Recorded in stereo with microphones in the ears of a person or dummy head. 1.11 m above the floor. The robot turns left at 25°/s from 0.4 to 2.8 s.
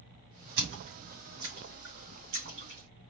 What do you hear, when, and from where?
0.6 s a splash: 55° right (ahead or behind), 3 m; by 3.1 s 65° right (ahead or behind), 3 m